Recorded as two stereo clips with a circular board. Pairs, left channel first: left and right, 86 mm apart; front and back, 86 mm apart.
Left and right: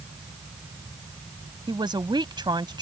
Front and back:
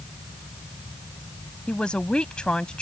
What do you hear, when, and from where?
1.7 s a man speaking: 75° right